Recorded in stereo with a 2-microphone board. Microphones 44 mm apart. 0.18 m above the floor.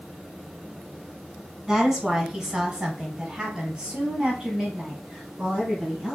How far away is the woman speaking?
About 1.3 m.